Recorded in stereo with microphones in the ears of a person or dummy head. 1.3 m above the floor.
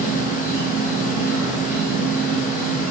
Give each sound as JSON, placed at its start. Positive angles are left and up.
{"t": 0.0, "sound": "an insect", "side_deg": -10, "distance_m": 1.5}